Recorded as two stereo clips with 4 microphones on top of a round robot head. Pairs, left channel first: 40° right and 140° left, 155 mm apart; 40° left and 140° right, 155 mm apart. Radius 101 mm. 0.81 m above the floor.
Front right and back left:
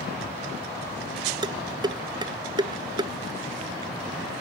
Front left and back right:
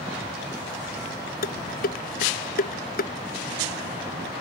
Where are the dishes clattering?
75° left.